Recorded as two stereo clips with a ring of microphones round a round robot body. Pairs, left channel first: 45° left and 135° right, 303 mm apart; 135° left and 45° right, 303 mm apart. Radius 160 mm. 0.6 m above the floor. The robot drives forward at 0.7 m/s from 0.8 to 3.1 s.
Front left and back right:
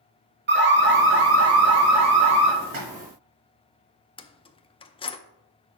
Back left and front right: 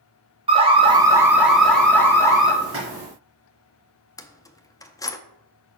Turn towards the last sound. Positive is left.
turn(degrees=75)